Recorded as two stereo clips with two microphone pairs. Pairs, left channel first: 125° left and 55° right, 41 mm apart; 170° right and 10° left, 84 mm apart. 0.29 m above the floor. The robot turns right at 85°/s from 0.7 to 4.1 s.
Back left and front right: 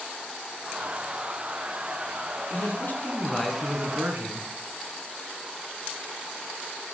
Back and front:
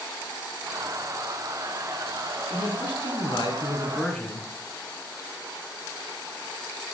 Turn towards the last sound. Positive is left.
turn(degrees=-95)